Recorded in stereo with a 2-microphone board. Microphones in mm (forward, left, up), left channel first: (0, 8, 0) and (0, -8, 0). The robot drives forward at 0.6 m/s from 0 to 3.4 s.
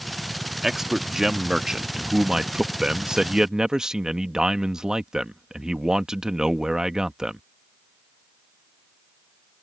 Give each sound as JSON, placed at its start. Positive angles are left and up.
{"t": 0.6, "sound": "a man speaking", "side_deg": -25}